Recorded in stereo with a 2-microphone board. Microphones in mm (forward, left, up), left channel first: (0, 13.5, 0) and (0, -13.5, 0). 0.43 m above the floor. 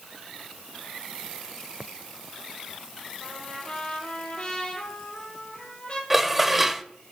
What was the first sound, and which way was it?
A trumpet, 30° left (ahead or behind).